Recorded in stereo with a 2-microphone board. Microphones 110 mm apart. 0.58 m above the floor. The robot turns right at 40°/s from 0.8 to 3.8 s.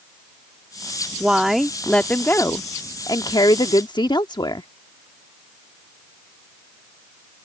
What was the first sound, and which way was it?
A woman speaking, 15° right.